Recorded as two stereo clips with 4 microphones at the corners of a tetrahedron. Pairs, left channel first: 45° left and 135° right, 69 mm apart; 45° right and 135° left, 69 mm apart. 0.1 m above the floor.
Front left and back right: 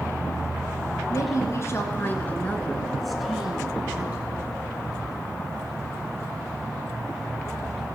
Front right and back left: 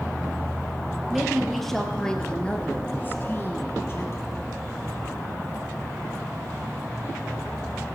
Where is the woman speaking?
50° left, 1.8 m; by 4.3 s 80° right, 1.8 m.